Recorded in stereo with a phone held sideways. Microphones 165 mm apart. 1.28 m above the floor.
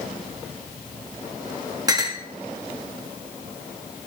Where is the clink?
25° right (ahead or behind), 1.1 m.